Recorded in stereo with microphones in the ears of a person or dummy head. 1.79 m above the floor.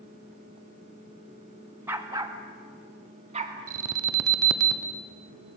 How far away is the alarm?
About 1.1 m.